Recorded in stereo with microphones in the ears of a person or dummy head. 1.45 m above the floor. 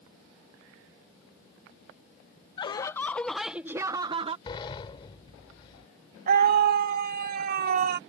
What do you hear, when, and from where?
2.6 s laughter: 25° left (ahead or behind); by 4.4 s 30° right (ahead or behind)
4.5 s a sliding door: 30° left (ahead or behind)
6.3 s a scream: 45° right (ahead or behind)